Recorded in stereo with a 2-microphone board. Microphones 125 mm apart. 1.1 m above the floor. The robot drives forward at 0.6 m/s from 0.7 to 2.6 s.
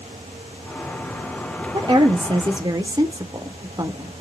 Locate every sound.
1.7 s a woman speaking: 35° right (ahead or behind), 0.5 m; by 4.1 s 30° right (ahead or behind), 0.6 m